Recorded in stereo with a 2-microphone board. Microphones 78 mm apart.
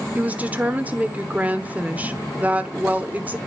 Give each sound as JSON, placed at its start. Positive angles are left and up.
{"t": 0.1, "sound": "a woman speaking", "side_deg": -20, "distance_m": 0.9}